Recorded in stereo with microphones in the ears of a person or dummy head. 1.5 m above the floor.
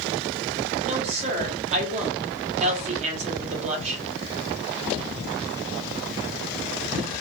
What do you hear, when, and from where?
0.8 s a woman speaking: 40° right (ahead or behind), 0.9 m